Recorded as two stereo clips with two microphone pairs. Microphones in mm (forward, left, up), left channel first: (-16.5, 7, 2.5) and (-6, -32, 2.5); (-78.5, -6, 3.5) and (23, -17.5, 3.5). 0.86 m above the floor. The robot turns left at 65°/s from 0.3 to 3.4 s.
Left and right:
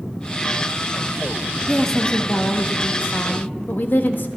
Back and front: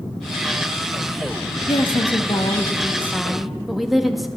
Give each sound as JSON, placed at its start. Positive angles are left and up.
{"t": 1.7, "sound": "a woman speaking", "azimuth_deg": -165, "distance_m": 1.2}